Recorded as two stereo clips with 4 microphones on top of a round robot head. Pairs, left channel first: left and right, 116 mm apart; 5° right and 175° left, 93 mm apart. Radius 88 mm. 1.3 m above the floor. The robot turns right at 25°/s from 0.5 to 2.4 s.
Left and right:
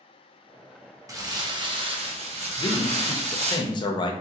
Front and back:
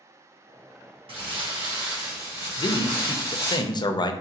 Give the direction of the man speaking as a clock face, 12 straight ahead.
11 o'clock.